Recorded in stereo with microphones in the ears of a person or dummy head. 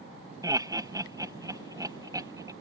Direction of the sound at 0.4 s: 25° right (ahead or behind).